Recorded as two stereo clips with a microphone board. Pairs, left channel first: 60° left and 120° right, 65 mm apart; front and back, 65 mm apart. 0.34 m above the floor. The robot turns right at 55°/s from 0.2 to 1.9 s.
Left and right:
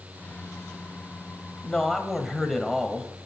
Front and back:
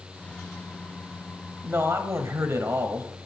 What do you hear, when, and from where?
1.6 s a man speaking: 130° left, 1.4 m; by 3.1 s 145° left, 1.4 m